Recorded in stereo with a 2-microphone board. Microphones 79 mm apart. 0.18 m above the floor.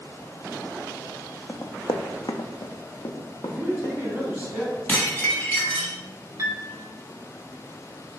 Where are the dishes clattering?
20° left (ahead or behind), 1.0 m.